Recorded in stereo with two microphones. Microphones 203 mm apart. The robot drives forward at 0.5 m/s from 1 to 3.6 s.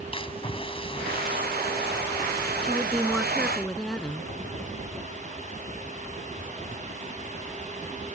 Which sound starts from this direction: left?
A splash, at 0.1 s.